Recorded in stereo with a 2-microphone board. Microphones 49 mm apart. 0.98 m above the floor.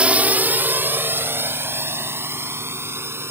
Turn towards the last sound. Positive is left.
turn(degrees=-60)  # may be behind; listen again after turning